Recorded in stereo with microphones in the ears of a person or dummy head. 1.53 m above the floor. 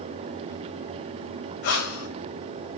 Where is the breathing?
55° left (ahead or behind), 2.5 m.